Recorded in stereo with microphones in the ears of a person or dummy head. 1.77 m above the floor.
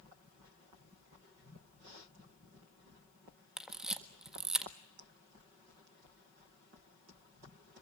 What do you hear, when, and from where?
3.6 s a camera shutter: 5° right (ahead or behind), 1.5 m